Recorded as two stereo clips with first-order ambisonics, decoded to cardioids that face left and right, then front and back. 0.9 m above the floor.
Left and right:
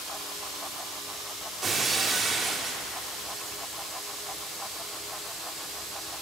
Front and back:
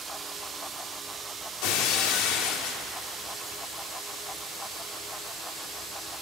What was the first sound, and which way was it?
Breaking glass, 15° right.